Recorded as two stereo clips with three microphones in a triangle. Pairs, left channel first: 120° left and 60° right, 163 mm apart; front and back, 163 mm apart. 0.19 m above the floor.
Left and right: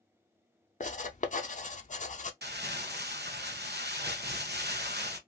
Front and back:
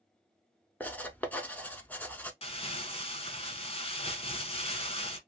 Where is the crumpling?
55° right, 0.7 m.